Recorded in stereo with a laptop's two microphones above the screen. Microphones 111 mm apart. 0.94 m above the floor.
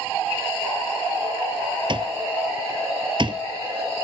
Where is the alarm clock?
45° right (ahead or behind).